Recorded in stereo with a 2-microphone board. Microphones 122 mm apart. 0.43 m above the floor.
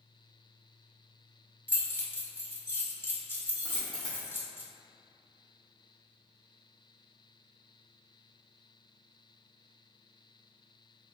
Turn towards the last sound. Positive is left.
turn(degrees=40)  # may be behind; listen again after turning